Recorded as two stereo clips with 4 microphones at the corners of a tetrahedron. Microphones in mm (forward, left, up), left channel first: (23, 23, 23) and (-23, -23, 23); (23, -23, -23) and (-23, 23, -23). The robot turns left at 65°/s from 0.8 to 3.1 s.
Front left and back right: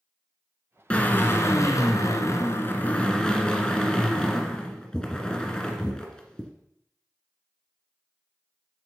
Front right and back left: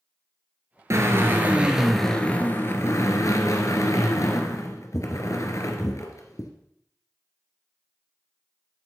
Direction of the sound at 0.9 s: 115° left.